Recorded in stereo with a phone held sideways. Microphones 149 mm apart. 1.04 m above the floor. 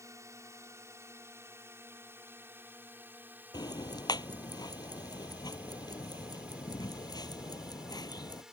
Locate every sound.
0.0 s a drone: 20° right (ahead or behind); by 8.5 s 5° right (ahead or behind)
3.5 s ticking: 25° left (ahead or behind)